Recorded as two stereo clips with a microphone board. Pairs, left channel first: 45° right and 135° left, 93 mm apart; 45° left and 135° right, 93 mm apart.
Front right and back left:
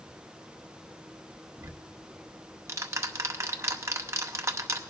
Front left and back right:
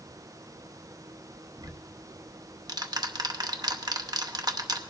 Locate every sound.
1.6 s ticking: 170° right, 0.7 m